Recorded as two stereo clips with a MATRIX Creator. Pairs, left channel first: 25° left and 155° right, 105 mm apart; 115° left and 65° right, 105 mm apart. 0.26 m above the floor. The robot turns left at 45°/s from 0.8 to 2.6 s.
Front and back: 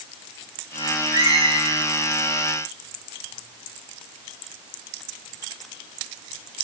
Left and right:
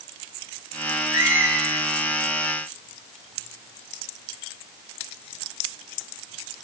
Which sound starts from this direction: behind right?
A squeak, at 1.1 s.